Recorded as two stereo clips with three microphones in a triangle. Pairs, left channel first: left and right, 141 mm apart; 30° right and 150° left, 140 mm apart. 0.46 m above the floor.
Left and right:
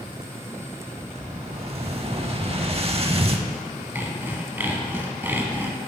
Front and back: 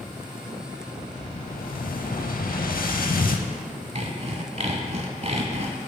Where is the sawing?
165° right, 0.7 m.